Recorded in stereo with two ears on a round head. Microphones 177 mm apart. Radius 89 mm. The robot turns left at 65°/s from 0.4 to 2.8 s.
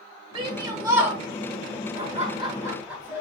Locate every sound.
0.3 s a shout: 115° right, 1.1 m; by 1.2 s 165° right, 1.1 m
1.9 s laughter: 110° right, 1.3 m; by 3.2 s 165° right, 1.3 m